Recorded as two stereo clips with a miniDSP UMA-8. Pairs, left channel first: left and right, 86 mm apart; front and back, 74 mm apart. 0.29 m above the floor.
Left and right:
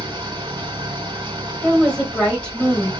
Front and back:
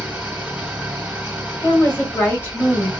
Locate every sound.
0.0 s an engine running: 105° right, 1.5 m
1.6 s a woman speaking: 30° left, 1.6 m